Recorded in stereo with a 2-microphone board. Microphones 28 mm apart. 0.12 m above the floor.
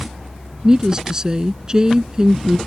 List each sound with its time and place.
0.6 s a woman speaking: 25° right (ahead or behind)